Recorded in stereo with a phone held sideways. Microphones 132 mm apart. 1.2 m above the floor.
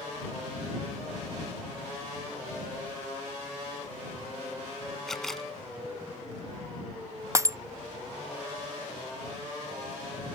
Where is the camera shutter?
5° left (ahead or behind).